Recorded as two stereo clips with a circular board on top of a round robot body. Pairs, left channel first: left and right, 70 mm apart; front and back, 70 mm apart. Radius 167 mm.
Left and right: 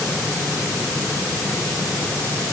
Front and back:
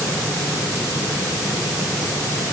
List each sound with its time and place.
Only background noise.